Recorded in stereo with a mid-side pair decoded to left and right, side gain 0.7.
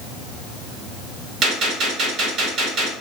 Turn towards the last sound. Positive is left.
turn(degrees=-50)